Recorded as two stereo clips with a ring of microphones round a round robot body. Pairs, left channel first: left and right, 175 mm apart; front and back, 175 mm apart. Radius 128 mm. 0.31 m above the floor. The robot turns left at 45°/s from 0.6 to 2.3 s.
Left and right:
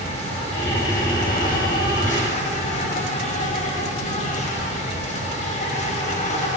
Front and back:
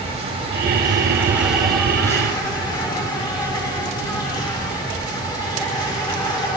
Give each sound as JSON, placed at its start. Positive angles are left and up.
{"t": 0.0, "sound": "an insect", "azimuth_deg": 135, "distance_m": 3.0}